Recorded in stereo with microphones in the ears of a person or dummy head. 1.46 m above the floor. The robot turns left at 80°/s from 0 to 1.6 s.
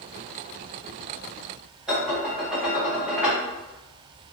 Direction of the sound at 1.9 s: 5° right (ahead or behind).